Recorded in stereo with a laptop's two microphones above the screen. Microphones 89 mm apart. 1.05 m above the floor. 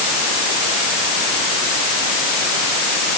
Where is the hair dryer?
I don't hear a hair dryer.